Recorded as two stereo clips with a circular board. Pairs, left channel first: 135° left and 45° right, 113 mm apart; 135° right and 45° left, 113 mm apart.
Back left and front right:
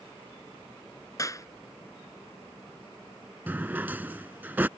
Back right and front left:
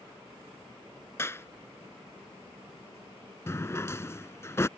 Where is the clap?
175° left.